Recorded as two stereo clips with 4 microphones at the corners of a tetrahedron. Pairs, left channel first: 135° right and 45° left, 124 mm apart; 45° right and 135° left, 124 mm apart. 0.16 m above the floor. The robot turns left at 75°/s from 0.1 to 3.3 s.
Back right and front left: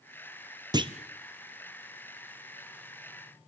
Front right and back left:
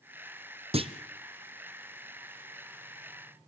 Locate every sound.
0.7 s a clunk: 100° left, 1.2 m; by 0.9 s 85° left, 1.2 m